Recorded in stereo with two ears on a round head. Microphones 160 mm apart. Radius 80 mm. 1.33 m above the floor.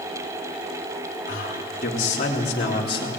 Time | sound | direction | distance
1.3 | a man speaking | 55° left (ahead or behind) | 3.5 m